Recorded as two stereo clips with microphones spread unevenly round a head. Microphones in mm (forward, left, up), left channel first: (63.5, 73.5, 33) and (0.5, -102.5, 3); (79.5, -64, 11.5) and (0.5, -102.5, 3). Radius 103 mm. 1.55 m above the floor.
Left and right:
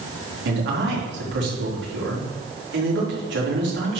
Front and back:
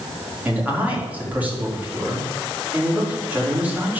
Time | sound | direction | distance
0.5 | a man speaking | 80° right | 4.5 m